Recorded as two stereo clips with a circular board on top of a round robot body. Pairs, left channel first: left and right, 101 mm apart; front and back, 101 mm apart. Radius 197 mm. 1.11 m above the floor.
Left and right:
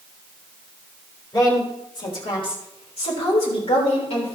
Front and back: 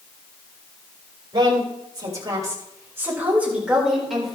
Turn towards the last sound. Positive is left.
turn(degrees=90)